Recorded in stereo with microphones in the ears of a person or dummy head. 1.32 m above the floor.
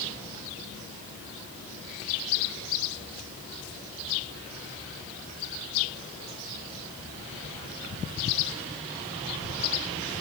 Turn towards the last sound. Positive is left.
No sound to turn to.